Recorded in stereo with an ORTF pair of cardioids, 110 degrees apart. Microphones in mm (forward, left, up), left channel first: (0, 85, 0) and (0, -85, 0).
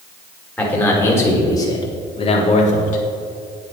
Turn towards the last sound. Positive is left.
turn(degrees=50)